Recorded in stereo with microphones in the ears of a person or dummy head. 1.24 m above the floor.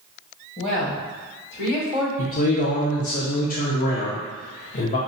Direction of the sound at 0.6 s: 35° left (ahead or behind).